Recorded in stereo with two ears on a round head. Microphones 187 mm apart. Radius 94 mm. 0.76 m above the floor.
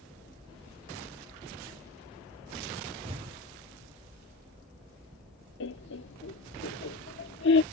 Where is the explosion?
30° right (ahead or behind).